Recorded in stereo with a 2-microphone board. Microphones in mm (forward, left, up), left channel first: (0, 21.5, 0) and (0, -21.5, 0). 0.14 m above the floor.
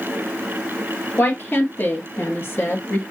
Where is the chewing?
No chewing in this recording.